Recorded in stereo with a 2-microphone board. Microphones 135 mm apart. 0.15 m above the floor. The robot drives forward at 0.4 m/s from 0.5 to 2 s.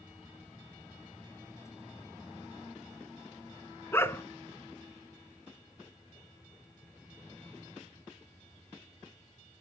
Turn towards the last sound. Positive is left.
turn(degrees=20)  # may be behind; listen again after turning